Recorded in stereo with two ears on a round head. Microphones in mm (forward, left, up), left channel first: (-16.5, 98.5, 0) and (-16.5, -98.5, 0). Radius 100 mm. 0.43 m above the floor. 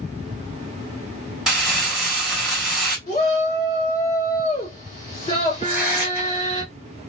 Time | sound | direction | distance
1.5 | crumpling | centre (ahead or behind) | 2 m
3.1 | a shout | 25° left (ahead or behind) | 2 m
5.6 | tearing paper | 10° right (ahead or behind) | 2.5 m